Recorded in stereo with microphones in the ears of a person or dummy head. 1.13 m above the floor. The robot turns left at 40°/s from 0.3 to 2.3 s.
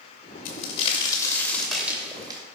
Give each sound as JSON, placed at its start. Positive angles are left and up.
{"t": 0.5, "sound": "a crack", "azimuth_deg": 60, "distance_m": 2.5}